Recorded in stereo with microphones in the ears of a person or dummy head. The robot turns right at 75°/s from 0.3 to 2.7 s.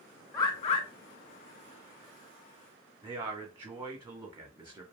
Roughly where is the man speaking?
Centre.